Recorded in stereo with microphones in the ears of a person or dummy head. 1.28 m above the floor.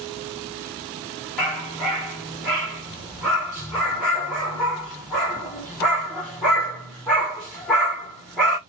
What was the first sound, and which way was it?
A dog barking, centre (ahead or behind).